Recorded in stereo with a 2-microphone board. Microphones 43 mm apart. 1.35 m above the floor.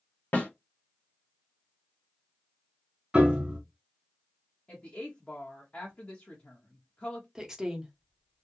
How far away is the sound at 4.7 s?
About 0.9 m.